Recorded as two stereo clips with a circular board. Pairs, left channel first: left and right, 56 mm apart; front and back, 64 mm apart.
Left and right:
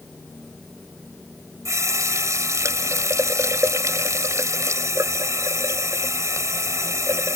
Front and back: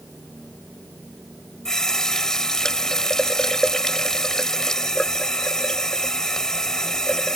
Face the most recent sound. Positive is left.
turn(degrees=-80)